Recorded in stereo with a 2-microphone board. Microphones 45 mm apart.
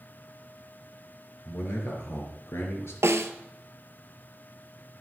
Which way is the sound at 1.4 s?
65° left (ahead or behind).